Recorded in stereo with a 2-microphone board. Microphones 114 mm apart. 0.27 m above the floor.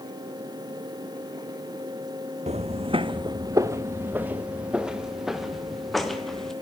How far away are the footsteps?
About 1.1 m.